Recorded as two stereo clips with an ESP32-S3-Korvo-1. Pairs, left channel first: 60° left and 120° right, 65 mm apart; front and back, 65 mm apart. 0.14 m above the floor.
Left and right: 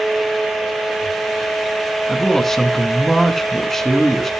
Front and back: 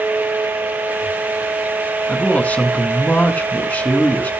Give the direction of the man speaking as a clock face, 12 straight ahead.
1 o'clock.